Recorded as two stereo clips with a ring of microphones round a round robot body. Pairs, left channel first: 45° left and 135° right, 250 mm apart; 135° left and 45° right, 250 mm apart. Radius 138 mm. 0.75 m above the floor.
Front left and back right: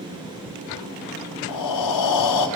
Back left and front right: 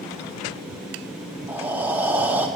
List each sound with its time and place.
1.5 s breathing: 40° left, 0.8 m